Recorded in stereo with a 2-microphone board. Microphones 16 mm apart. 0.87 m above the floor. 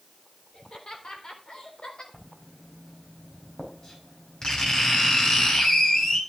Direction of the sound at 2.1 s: 55° left (ahead or behind).